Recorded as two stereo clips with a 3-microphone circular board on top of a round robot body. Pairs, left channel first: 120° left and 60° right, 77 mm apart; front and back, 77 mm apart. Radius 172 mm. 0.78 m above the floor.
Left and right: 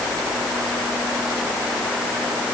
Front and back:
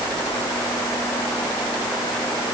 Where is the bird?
No bird in this recording.